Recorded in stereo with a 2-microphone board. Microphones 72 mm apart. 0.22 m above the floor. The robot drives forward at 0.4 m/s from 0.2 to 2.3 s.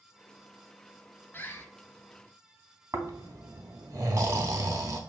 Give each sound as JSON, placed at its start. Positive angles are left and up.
{"t": 1.3, "sound": "a bird", "side_deg": 30, "distance_m": 0.6}
{"t": 2.9, "sound": "snoring", "side_deg": -50, "distance_m": 0.6}